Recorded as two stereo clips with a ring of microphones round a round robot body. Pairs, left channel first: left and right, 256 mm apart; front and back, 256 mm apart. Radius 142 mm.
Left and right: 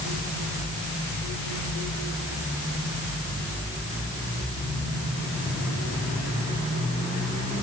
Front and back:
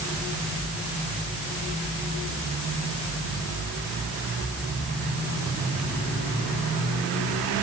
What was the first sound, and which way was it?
Only background noise.